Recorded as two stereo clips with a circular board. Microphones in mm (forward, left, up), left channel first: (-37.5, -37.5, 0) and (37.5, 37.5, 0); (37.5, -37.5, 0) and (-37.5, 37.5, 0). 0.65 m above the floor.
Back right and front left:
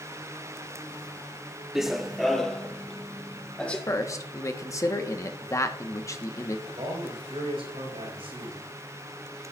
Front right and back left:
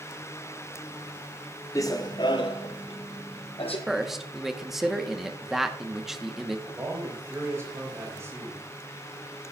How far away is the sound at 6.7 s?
About 4 m.